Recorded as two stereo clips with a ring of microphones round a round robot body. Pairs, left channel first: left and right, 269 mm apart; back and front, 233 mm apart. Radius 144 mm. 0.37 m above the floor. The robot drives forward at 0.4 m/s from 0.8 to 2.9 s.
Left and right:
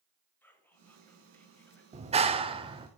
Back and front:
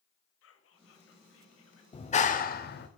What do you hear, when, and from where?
0.4 s whispering: 170° left, 1.7 m; by 1.8 s 175° left, 2 m
1.9 s a clap: 135° right, 0.7 m; by 2.9 s 155° right, 0.9 m